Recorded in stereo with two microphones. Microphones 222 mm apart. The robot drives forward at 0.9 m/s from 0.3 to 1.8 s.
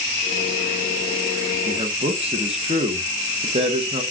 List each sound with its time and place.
1.7 s a man speaking: 25° right (ahead or behind), 0.9 m